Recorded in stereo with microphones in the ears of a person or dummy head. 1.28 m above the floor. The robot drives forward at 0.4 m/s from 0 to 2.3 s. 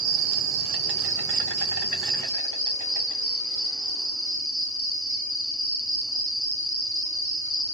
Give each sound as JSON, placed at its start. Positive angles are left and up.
{"t": 0.0, "sound": "an insect", "side_deg": -70, "distance_m": 0.8}